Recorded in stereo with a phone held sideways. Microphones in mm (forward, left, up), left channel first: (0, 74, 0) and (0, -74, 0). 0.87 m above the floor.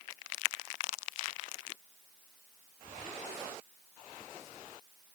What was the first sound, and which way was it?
Only background noise.